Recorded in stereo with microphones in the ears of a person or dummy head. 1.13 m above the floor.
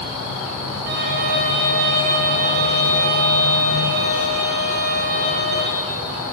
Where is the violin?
45° right (ahead or behind), 2.0 m.